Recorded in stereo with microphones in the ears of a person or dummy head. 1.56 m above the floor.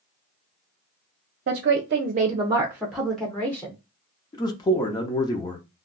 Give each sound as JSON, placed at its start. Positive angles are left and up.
{"t": 1.5, "sound": "a woman speaking", "side_deg": -55, "distance_m": 0.7}
{"t": 4.3, "sound": "a man speaking", "side_deg": 20, "distance_m": 0.6}